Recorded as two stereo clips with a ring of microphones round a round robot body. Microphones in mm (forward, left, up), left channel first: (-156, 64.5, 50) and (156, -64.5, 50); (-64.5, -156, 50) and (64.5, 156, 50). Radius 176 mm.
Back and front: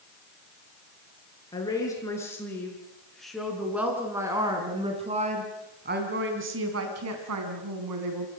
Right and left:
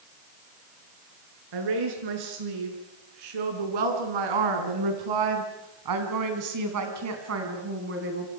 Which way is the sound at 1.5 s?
80° left.